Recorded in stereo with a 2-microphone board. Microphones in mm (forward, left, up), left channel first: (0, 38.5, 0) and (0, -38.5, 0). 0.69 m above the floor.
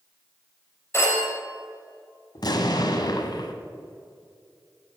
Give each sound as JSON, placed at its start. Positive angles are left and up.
{"t": 0.9, "sound": "a phone ringing", "side_deg": 35, "distance_m": 2.5}
{"t": 2.4, "sound": "an explosion", "side_deg": 65, "distance_m": 1.0}